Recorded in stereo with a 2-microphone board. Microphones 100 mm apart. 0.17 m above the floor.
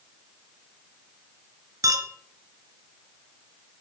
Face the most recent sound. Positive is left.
turn(degrees=-30)  # may be behind; listen again after turning